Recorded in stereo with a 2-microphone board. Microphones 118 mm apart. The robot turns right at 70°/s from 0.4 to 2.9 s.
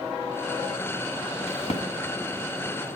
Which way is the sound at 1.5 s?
60° left (ahead or behind).